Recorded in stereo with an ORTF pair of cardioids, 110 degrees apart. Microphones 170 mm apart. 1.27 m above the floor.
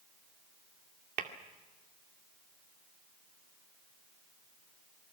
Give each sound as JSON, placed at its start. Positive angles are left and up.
{"t": 1.2, "sound": "tapping", "azimuth_deg": -60, "distance_m": 2.0}